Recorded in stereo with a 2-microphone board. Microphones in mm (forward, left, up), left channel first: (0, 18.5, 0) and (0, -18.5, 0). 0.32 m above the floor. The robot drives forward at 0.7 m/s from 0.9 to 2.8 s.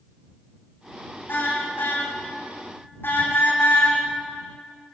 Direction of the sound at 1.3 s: 70° left (ahead or behind).